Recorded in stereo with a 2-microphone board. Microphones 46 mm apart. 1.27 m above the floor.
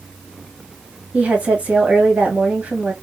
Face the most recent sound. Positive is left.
turn(degrees=-30)  # may be behind; listen again after turning